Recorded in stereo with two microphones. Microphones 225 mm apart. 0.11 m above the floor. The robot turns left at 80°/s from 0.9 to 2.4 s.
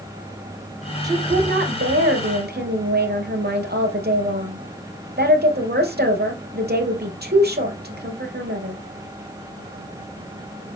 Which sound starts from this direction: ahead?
A woman speaking, at 1.0 s.